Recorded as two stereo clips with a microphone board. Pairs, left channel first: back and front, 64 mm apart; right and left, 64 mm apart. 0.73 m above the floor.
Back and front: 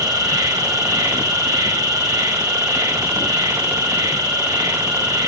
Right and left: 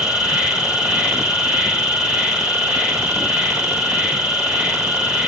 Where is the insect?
15° left, 2.5 m.